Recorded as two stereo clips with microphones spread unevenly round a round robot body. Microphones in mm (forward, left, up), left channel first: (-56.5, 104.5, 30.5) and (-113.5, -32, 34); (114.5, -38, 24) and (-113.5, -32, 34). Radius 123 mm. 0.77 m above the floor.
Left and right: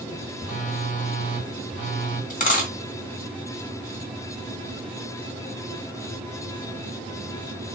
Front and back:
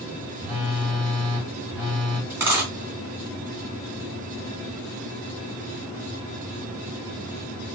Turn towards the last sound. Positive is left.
turn(degrees=95)